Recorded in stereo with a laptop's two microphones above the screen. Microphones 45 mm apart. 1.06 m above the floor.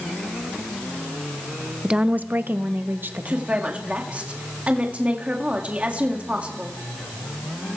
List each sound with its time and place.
1.8 s a woman speaking: 20° right (ahead or behind), 0.7 m; by 3.6 s 50° right (ahead or behind), 2.0 m
3.3 s a woman speaking: 35° right (ahead or behind), 1.8 m